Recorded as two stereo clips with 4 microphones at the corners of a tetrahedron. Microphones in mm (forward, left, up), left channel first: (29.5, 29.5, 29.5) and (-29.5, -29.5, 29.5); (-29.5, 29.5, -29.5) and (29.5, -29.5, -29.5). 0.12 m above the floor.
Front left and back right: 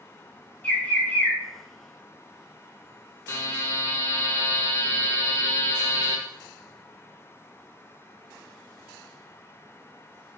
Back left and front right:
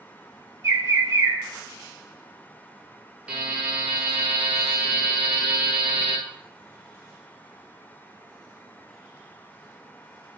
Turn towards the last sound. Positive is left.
turn(degrees=20)